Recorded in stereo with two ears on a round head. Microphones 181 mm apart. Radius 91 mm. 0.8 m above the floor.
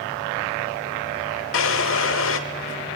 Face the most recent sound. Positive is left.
turn(degrees=70)  # may be behind; listen again after turning